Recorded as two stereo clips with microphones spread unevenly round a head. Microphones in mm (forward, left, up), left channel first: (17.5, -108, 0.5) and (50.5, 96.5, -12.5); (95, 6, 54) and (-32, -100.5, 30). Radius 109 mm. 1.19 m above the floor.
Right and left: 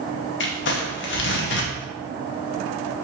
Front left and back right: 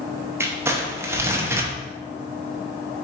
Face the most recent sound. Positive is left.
turn(degrees=-65)